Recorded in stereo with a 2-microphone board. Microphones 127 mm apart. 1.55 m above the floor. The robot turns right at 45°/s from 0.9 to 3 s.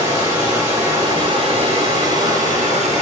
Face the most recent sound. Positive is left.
turn(degrees=-65)